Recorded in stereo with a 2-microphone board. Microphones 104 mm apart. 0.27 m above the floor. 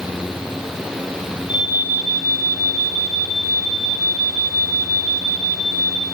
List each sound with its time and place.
1.5 s an alarm: 50° left (ahead or behind), 9 m